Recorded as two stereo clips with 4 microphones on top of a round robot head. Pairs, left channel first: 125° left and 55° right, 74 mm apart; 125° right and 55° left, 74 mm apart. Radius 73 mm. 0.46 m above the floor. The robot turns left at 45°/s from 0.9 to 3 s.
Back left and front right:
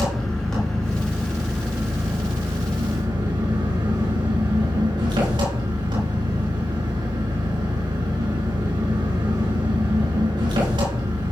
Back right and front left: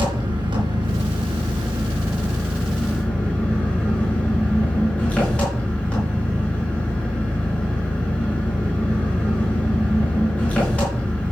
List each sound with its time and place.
0.0 s an engine running: 45° left, 5 m; by 11.3 s 50° right, 5 m